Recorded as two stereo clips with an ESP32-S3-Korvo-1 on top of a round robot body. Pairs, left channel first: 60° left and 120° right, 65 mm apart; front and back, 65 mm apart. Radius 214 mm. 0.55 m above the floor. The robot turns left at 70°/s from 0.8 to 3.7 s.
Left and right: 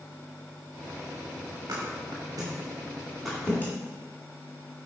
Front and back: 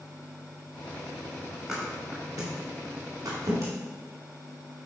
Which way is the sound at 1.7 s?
95° right.